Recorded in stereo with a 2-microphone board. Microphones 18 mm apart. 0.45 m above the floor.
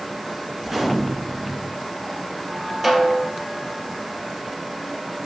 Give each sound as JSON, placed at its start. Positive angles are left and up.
{"t": 0.6, "sound": "a gunshot", "side_deg": -20, "distance_m": 3.0}
{"t": 2.8, "sound": "a snare drum", "side_deg": -25, "distance_m": 3.0}